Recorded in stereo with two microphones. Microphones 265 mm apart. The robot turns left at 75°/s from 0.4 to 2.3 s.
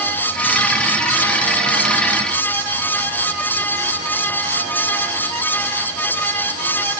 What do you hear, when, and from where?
Only background noise.